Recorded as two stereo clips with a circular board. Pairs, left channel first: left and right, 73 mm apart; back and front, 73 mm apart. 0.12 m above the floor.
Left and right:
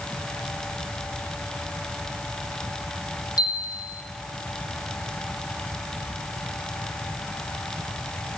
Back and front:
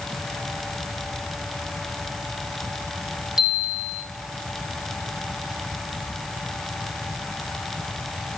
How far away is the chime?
About 1.4 m.